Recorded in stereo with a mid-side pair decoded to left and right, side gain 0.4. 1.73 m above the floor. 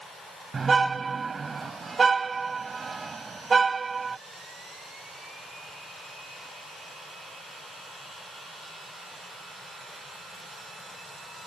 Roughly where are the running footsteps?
I don't hear running footsteps.